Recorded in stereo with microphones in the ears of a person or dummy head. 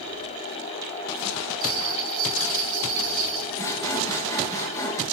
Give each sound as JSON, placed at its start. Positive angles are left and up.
{"t": 1.6, "sound": "a bell", "side_deg": -50, "distance_m": 1.8}
{"t": 3.6, "sound": "sawing", "side_deg": 15, "distance_m": 1.1}